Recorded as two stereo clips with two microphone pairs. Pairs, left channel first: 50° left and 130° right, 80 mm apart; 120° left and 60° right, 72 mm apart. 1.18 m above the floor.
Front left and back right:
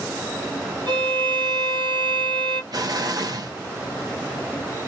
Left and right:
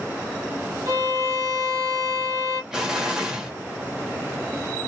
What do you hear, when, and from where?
0.9 s a violin: 95° right, 1.2 m
2.7 s an explosion: 140° right, 1.0 m